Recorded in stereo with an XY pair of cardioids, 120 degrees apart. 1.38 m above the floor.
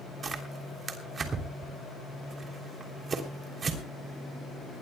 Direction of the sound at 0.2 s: 35° right.